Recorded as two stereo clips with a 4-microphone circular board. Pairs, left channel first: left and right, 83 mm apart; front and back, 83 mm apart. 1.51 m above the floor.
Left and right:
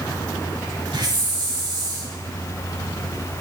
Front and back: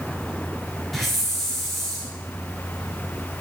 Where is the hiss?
90° right, 4.5 m.